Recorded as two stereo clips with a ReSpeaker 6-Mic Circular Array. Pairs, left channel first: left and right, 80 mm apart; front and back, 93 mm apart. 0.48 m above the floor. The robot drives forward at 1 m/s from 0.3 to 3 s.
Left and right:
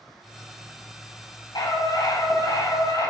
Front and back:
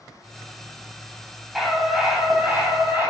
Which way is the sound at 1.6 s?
90° left.